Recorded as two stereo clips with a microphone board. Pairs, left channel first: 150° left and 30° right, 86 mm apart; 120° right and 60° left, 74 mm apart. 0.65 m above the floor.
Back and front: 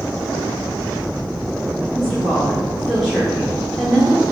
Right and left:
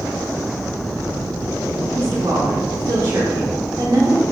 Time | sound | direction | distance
1.9 | a woman speaking | 65° left | 1.4 m